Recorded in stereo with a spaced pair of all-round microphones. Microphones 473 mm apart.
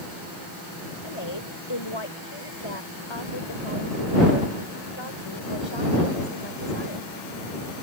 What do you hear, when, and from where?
1.0 s a woman speaking: 75° left (ahead or behind)